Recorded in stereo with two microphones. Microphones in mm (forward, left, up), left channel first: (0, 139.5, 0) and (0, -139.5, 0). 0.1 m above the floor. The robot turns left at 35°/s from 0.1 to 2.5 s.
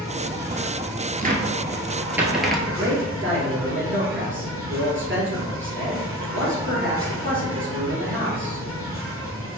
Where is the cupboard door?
30° right (ahead or behind), 0.7 m; by 2.6 s centre (ahead or behind), 0.7 m.